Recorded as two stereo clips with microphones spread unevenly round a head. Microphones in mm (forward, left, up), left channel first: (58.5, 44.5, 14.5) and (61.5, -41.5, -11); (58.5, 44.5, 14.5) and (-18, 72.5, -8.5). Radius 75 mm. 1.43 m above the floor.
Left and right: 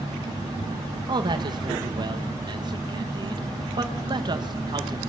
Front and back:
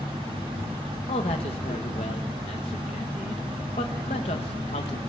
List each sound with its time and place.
1.1 s a man speaking: 50° right, 1.6 m